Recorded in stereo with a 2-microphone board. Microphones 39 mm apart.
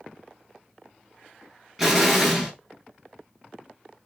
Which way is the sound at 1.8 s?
5° right (ahead or behind).